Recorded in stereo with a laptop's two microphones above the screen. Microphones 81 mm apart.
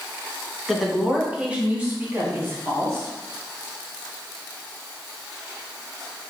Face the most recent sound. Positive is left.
turn(degrees=-35)  # may be behind; listen again after turning